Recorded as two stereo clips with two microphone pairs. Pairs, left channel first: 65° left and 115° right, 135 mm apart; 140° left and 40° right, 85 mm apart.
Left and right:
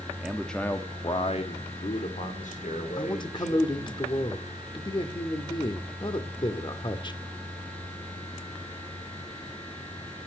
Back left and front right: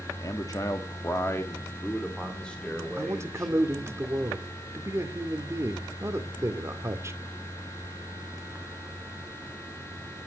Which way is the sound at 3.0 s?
10° left.